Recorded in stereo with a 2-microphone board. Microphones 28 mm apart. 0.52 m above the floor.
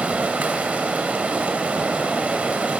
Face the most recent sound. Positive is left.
turn(degrees=-65)  # may be behind; listen again after turning